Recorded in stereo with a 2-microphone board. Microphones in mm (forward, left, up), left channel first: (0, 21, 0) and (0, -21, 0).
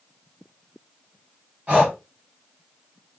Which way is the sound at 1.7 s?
35° right (ahead or behind).